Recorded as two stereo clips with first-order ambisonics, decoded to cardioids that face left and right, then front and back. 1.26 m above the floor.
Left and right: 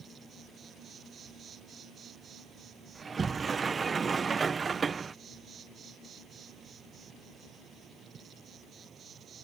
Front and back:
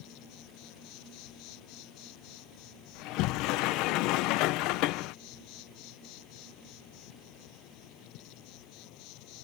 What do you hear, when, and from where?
0.0 s an insect: 25° right
3.0 s a sliding door: 20° right